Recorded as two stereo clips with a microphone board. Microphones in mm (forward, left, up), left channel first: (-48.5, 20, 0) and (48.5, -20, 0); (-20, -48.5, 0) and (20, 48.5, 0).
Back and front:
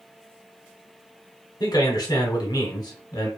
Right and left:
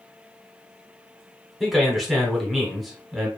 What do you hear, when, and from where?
1.6 s a man speaking: 155° left, 0.9 m